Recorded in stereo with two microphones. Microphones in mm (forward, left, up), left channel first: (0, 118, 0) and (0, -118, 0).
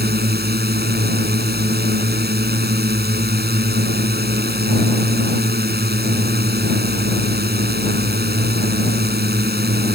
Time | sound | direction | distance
0.0 | a drone | 45° right (ahead or behind) | ?